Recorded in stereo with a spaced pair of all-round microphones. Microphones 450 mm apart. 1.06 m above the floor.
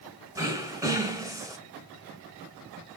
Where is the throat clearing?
5° right (ahead or behind), 0.9 m.